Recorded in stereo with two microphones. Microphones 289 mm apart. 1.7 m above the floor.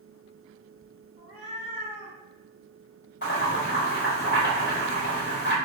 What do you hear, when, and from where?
1.2 s a cat meowing: 20° right (ahead or behind), 1.6 m
3.2 s boiling: 40° left (ahead or behind), 1.8 m